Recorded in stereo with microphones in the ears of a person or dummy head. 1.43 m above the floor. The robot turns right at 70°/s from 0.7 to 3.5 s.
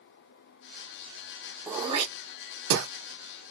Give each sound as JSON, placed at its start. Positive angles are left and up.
{"t": 1.7, "sound": "throat clearing", "side_deg": -5, "distance_m": 1.0}